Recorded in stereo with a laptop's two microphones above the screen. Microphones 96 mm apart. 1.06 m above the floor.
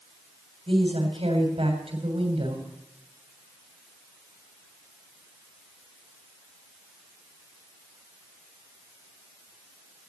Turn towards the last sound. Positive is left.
turn(degrees=-80)